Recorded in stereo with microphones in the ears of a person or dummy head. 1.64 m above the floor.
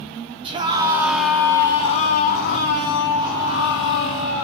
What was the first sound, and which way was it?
A scream, 30° right (ahead or behind).